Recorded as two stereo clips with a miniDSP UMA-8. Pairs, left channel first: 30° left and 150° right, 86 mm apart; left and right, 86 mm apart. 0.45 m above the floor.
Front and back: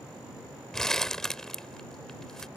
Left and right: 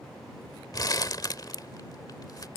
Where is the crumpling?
115° left.